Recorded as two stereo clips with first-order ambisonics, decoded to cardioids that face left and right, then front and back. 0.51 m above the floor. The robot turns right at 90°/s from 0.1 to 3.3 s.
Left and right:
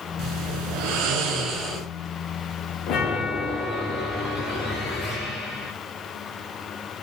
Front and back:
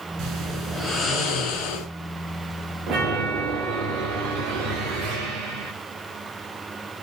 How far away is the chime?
About 8.5 m.